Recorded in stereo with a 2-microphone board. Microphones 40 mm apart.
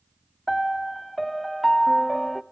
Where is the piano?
5° left (ahead or behind), 0.5 m.